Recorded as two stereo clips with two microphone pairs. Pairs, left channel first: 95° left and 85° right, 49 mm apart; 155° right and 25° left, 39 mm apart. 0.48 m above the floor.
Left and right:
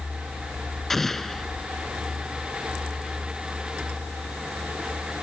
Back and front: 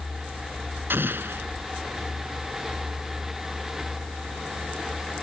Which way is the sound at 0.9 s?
10° left.